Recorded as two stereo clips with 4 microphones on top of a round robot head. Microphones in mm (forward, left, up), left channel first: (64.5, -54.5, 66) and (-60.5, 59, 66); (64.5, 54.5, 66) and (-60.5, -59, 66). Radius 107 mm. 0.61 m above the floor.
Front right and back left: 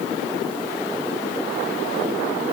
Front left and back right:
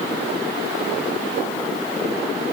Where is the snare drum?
No snare drum in this recording.